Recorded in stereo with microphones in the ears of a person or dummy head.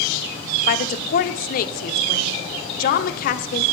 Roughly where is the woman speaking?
Left.